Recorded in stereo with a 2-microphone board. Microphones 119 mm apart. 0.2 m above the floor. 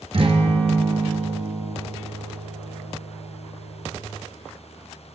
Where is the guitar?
55° right (ahead or behind), 1.6 m.